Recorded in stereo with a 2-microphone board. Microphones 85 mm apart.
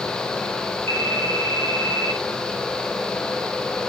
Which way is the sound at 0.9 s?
30° left (ahead or behind).